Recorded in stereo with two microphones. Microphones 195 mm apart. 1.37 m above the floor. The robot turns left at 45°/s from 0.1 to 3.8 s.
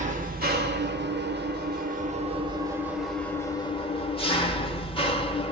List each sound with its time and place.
0.0 s an engine running: 45° right, 0.7 m; by 5.5 s 145° left, 0.7 m